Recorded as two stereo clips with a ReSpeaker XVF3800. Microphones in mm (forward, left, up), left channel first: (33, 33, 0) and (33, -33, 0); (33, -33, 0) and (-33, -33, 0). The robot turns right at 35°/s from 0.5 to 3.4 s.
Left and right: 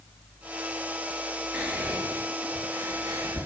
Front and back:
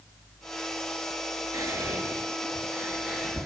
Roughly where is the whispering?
Behind.